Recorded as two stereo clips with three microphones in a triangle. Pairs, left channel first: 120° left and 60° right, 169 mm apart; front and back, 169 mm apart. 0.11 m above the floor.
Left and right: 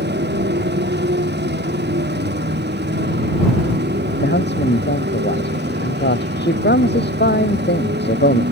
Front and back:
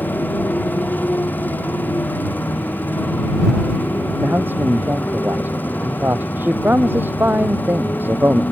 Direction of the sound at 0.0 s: 80° right.